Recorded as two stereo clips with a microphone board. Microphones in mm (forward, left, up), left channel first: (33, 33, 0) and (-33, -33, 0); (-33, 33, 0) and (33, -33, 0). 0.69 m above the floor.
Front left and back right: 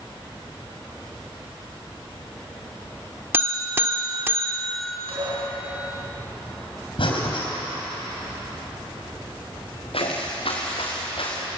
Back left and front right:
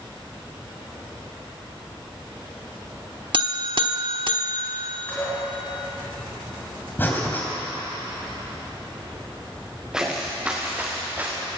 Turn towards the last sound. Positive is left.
turn(degrees=25)